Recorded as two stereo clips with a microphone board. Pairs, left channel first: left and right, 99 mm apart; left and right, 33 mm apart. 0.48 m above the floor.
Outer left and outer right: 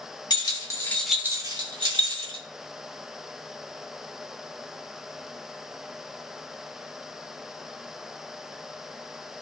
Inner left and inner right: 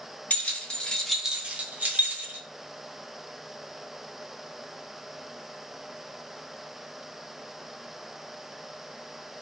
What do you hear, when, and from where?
0.3 s keys jangling: 45° left (ahead or behind), 1.1 m; by 2.4 s 65° right (ahead or behind), 1.6 m